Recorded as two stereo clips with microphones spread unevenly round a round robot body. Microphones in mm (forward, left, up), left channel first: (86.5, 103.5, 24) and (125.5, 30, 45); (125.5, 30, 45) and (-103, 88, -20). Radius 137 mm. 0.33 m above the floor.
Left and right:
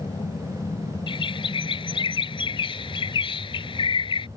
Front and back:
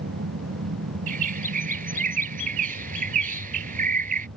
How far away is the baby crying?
No baby crying in this recording.